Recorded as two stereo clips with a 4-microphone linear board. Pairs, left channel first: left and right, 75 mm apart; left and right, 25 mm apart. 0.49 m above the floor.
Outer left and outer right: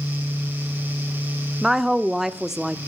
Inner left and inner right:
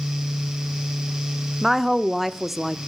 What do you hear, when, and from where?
1.6 s a woman speaking: 5° right (ahead or behind), 0.7 m